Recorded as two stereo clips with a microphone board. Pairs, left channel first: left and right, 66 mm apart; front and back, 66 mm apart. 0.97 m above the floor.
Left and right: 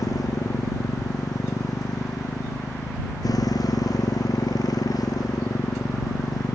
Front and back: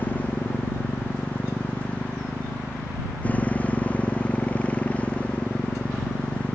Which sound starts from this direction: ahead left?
A motorcycle, at 0.0 s.